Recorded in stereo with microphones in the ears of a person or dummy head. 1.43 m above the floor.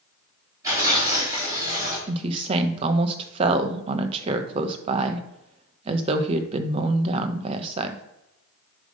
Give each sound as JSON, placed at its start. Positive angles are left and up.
{"t": 0.6, "sound": "tearing paper", "side_deg": -20, "distance_m": 4.0}
{"t": 2.1, "sound": "a woman speaking", "side_deg": -35, "distance_m": 0.9}